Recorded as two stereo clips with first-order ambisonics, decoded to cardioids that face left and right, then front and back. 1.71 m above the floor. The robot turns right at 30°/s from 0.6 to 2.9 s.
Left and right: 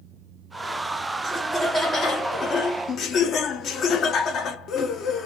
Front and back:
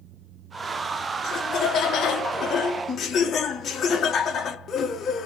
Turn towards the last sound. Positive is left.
turn(degrees=55)